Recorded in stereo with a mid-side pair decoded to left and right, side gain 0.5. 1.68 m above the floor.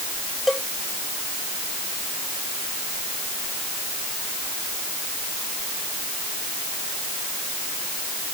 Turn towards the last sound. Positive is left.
turn(degrees=10)